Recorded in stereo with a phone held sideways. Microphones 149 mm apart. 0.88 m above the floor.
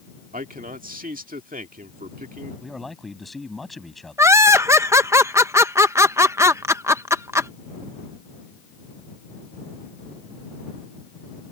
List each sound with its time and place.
0.3 s a man speaking: 70° right (ahead or behind)
2.6 s a man speaking: centre (ahead or behind)
4.2 s laughter: 20° right (ahead or behind)